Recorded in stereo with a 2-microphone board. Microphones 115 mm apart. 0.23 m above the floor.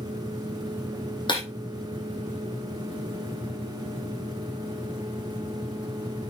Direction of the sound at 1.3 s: 45° left (ahead or behind).